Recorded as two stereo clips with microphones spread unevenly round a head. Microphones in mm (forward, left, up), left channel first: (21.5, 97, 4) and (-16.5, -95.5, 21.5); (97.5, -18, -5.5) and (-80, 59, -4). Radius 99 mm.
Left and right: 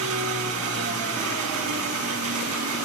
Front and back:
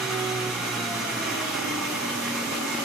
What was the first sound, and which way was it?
An engine running, 115° right.